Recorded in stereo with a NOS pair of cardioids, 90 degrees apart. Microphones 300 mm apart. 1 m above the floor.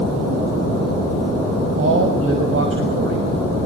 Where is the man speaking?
45° right, 6 m.